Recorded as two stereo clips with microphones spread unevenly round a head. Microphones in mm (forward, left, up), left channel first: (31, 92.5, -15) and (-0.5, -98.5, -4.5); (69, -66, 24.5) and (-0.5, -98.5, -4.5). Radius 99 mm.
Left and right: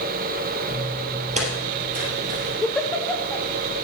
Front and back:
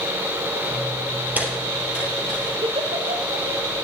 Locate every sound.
0.7 s footsteps: 95° right, 1.8 m; by 2.5 s 60° right, 4 m
2.6 s a giggle: 165° left, 0.9 m